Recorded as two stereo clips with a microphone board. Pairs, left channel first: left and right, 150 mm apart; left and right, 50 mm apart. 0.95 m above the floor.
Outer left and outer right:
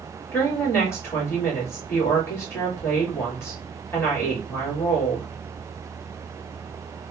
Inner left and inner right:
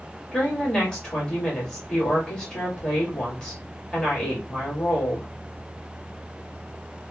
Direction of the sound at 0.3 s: 15° left (ahead or behind).